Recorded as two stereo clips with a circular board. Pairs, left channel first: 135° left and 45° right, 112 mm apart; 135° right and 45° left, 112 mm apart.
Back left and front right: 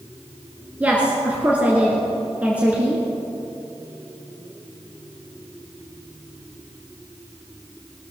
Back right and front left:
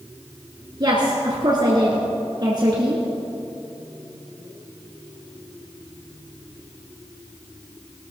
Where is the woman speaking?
25° left, 1.8 m.